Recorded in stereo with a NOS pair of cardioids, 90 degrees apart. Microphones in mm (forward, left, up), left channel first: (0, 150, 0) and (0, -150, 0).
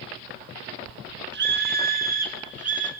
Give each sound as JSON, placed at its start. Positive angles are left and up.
{"t": 1.3, "sound": "a scream", "azimuth_deg": -40, "distance_m": 1.4}